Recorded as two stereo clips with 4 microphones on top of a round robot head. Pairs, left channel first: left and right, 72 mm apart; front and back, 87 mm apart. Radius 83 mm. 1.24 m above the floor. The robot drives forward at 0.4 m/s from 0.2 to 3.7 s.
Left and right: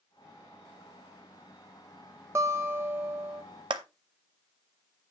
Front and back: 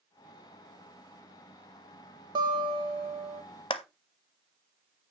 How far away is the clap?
About 0.5 m.